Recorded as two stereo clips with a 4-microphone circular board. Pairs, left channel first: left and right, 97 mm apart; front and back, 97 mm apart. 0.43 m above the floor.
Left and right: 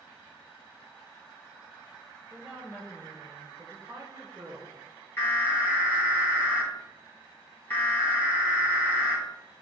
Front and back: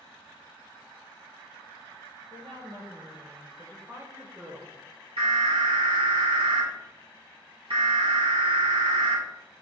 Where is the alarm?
160° left, 4 m.